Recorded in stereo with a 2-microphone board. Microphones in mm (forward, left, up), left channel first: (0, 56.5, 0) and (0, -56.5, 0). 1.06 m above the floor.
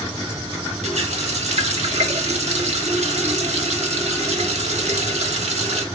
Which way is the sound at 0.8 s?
80° right.